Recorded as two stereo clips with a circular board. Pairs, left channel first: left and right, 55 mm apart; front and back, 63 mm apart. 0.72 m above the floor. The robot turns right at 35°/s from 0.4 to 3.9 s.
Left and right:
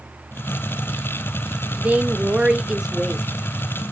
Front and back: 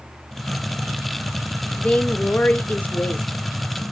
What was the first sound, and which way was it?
A woman speaking, 55° right.